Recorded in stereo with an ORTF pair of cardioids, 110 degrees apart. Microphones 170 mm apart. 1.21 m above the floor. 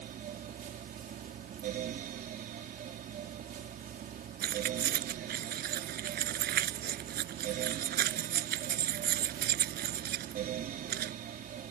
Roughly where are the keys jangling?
Ahead right.